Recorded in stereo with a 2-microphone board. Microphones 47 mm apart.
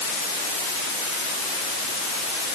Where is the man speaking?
I don't hear a man speaking.